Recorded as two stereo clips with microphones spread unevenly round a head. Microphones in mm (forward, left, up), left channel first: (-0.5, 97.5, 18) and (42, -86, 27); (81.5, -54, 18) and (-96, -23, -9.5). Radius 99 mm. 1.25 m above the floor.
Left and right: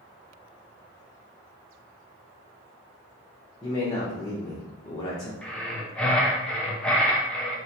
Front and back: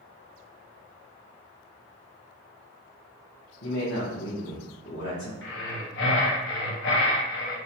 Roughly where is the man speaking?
Ahead left.